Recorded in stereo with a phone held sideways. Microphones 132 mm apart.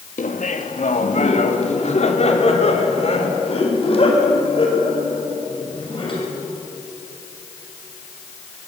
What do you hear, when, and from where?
0.2 s laughter: 75° left (ahead or behind), 1.9 m; by 6.3 s 45° left (ahead or behind), 6.5 m